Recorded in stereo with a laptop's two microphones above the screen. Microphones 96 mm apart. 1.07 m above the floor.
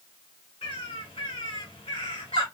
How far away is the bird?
About 3 m.